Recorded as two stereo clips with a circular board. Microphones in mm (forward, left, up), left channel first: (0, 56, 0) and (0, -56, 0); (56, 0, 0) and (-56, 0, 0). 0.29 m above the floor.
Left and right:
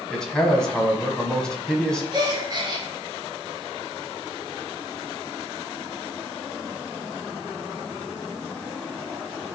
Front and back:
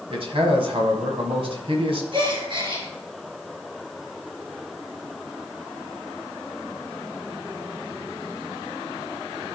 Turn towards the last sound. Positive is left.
turn(degrees=-140)